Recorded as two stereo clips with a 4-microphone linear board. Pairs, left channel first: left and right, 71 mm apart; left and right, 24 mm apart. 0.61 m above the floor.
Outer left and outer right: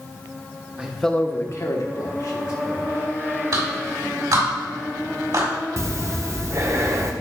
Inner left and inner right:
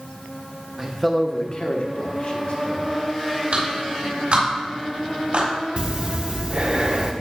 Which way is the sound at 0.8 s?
20° right (ahead or behind).